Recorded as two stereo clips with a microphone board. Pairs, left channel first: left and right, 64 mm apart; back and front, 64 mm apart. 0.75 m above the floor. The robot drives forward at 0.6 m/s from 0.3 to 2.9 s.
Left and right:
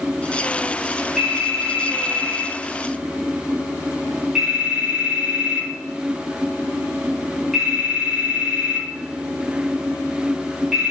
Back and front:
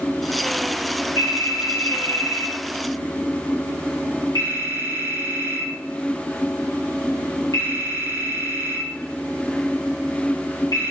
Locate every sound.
1.2 s a phone ringing: 175° right, 4 m